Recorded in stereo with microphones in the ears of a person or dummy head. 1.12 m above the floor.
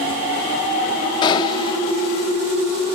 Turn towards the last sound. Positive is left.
turn(degrees=30)  # may be behind; listen again after turning